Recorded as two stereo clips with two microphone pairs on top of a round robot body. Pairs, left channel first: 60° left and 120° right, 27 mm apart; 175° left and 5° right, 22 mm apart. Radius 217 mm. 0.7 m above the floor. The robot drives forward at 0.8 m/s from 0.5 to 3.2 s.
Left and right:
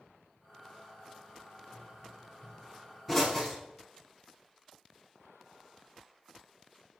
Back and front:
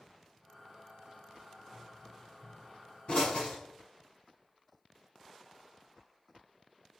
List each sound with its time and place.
1.7 s a pop: 150° left, 9 m; by 3.6 s 155° left, 10 m